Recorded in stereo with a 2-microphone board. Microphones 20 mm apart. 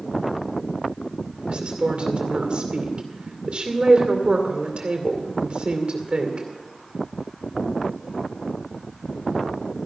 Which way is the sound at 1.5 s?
70° right (ahead or behind).